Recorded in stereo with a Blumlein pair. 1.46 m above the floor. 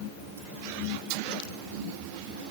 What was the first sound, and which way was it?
Only background noise.